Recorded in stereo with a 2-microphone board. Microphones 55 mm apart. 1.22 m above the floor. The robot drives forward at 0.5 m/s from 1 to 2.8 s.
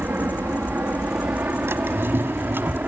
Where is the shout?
I don't hear a shout.